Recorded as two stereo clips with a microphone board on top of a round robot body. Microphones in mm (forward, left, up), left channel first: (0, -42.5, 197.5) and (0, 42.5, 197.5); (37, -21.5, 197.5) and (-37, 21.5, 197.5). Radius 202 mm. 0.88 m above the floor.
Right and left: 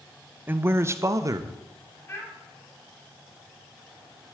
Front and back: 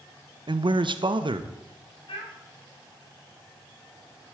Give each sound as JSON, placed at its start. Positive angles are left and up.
{"t": 0.5, "sound": "a man speaking", "azimuth_deg": 155, "distance_m": 1.1}
{"t": 2.1, "sound": "a child speaking", "azimuth_deg": -30, "distance_m": 6.0}